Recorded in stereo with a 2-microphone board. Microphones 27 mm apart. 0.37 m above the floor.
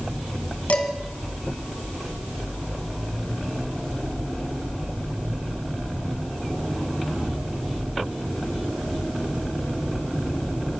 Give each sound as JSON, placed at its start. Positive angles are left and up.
{"t": 0.7, "sound": "dishes clattering", "side_deg": 55, "distance_m": 2.0}